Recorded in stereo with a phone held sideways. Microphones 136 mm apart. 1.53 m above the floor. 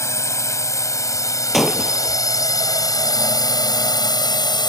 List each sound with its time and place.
0.0 s a drone: 25° left (ahead or behind); by 4.7 s 35° left (ahead or behind)
1.5 s breaking glass: centre (ahead or behind)